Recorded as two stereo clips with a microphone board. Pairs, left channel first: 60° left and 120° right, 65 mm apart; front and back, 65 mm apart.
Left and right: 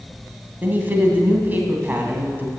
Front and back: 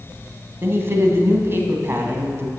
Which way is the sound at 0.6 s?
160° right.